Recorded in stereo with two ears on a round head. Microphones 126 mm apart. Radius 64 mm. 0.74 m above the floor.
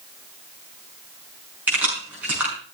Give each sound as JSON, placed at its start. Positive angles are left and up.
{"t": 1.7, "sound": "keys jangling", "side_deg": -10, "distance_m": 5.5}